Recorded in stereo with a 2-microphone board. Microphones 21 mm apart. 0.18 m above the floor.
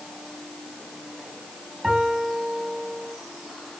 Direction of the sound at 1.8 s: 15° right (ahead or behind).